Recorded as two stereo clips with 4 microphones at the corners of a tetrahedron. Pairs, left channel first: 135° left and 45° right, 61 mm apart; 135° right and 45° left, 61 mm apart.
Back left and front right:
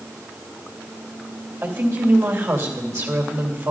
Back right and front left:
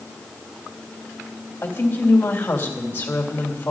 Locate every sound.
1.6 s a woman speaking: 75° right, 2.5 m